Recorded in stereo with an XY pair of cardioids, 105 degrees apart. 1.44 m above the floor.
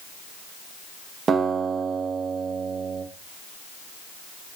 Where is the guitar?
45° right, 0.6 m.